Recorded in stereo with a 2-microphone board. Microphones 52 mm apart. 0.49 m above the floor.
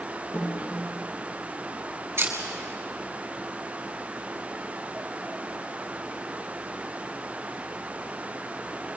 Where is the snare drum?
70° left (ahead or behind), 9.5 m.